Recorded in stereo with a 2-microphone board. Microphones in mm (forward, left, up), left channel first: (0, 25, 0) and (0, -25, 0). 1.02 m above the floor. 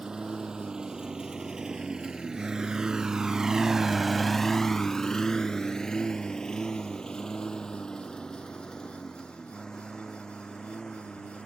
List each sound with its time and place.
0.0 s a lawn mower: 15° right (ahead or behind); by 11.5 s 15° left (ahead or behind)